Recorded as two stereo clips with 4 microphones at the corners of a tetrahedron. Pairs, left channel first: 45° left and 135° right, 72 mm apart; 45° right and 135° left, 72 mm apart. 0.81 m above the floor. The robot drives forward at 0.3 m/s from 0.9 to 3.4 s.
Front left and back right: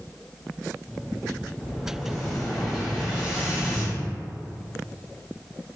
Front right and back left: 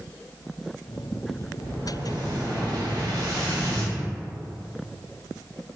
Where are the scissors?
No scissors in this recording.